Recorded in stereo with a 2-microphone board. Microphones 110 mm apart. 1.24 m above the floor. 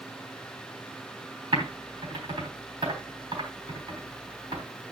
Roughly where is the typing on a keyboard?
Right.